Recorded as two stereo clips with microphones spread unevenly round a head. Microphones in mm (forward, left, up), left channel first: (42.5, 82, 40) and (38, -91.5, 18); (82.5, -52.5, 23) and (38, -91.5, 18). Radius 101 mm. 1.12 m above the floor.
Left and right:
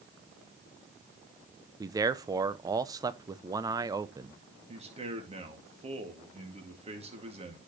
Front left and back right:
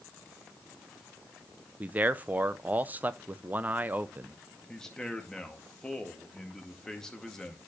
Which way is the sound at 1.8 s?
125° right.